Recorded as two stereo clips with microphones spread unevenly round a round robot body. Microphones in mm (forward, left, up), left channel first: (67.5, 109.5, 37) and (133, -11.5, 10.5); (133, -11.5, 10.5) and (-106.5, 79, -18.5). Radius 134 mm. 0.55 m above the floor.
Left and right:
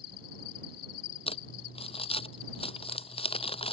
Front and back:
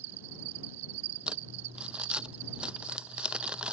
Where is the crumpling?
75° left.